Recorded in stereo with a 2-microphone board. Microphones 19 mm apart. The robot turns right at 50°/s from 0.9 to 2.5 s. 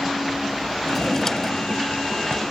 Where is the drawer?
Straight ahead; by 2.4 s 75° left.